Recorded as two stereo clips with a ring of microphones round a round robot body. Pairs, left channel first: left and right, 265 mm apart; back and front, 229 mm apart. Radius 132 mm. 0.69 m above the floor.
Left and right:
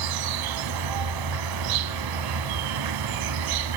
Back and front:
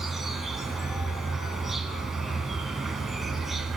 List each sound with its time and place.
0.0 s an insect: 90° right, 1.6 m